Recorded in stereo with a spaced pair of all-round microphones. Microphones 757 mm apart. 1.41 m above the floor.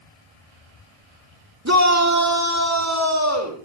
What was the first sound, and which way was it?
A shout, 20° right (ahead or behind).